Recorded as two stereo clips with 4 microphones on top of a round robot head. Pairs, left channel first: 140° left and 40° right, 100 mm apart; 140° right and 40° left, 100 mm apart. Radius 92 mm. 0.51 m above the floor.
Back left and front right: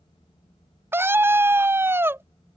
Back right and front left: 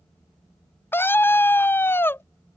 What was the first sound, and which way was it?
A scream, 90° right.